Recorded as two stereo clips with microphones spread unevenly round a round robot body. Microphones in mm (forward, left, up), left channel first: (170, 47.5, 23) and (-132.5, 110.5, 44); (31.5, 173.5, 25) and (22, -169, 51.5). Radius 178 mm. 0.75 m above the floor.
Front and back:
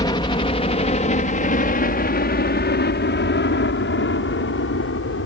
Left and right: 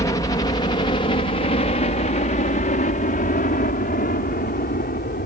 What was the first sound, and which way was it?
A helicopter, 35° left.